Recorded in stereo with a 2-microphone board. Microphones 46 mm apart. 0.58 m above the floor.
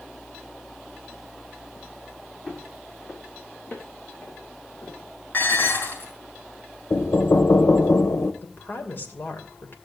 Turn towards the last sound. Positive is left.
turn(degrees=50)  # may be behind; listen again after turning